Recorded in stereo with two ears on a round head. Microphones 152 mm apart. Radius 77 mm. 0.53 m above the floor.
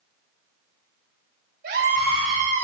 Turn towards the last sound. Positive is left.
turn(degrees=-45)  # may be behind; listen again after turning